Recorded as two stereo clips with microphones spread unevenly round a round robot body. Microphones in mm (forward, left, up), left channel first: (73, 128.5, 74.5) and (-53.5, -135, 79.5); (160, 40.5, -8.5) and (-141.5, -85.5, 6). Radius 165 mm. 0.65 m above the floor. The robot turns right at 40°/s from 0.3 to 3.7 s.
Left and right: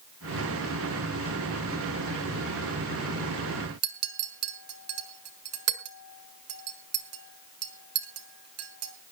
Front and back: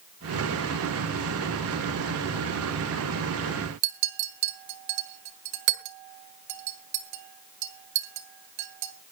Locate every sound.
3.8 s a clink: 160° right, 2 m